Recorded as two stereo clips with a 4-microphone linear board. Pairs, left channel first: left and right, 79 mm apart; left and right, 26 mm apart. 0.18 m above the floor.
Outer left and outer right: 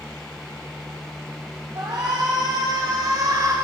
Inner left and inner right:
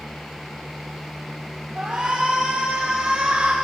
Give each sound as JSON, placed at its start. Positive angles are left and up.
{"t": 1.8, "sound": "a shout", "side_deg": -55, "distance_m": 4.5}